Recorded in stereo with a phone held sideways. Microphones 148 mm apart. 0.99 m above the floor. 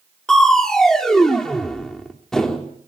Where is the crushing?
5° left (ahead or behind), 2.5 m.